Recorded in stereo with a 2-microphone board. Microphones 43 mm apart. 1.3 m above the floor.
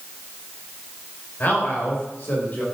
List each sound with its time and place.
1.4 s a man speaking: 45° left (ahead or behind), 5 m